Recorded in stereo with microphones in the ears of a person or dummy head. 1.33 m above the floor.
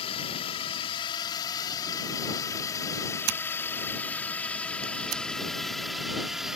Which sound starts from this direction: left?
A drone, at 0.0 s.